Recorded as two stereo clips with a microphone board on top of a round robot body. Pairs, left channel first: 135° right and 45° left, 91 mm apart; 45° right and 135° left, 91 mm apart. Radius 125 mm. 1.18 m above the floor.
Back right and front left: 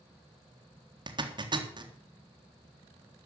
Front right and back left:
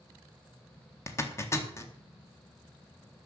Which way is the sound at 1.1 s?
15° left.